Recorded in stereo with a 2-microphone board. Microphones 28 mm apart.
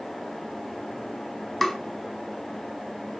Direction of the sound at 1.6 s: 5° left (ahead or behind).